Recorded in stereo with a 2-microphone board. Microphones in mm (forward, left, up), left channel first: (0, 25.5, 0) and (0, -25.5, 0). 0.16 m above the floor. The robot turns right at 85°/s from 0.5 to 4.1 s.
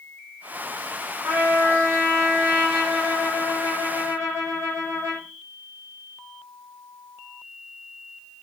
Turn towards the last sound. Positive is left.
turn(degrees=105)